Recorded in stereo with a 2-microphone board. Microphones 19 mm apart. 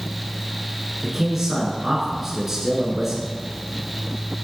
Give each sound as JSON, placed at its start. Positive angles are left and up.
{"t": 1.0, "sound": "a man speaking", "side_deg": -15, "distance_m": 1.6}